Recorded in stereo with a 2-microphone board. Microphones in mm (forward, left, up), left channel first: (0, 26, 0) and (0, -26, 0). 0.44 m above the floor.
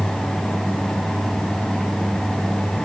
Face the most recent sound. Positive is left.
No sound to turn to.